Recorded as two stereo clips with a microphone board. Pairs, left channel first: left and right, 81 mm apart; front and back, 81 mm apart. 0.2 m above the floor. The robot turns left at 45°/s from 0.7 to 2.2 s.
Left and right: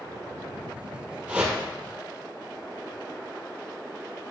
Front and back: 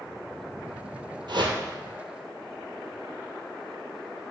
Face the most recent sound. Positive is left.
turn(degrees=155)